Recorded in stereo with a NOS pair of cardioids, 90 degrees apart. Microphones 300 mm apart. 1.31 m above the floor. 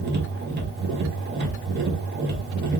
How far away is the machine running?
About 1.0 m.